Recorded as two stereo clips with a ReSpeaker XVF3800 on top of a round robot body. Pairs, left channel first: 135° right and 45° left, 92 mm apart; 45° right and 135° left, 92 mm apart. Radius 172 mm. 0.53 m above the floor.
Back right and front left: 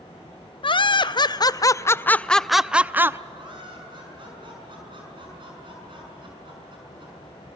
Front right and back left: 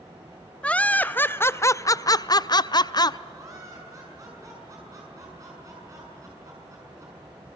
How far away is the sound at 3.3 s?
About 6.5 m.